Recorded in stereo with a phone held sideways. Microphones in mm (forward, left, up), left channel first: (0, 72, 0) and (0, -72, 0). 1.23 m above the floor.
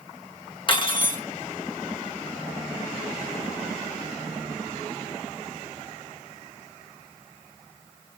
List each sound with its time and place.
0.7 s cutlery clinking: 35° left (ahead or behind), 0.8 m